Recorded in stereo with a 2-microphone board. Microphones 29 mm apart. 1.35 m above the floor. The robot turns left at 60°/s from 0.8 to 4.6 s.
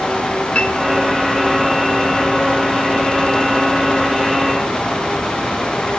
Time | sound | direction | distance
0.6 | a piano | 45° left (ahead or behind) | 6.5 m